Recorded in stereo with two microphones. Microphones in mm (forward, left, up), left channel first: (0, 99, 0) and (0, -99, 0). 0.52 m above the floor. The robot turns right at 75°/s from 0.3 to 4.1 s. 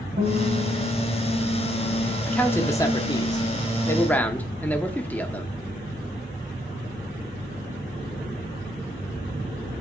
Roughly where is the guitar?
Right.